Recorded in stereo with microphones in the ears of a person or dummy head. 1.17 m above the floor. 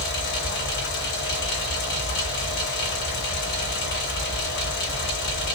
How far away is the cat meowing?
I don't hear a cat meowing.